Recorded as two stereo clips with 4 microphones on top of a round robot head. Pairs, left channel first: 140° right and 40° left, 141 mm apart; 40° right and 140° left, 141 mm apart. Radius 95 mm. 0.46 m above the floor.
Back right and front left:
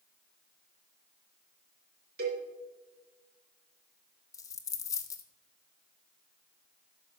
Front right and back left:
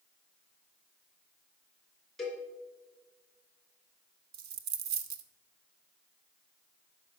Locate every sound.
2.2 s a cowbell: 50° left, 3 m
4.3 s a dropped coin: 155° left, 0.7 m